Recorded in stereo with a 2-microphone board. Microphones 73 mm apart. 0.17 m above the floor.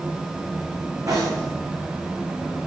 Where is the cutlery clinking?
50° right (ahead or behind), 9 m.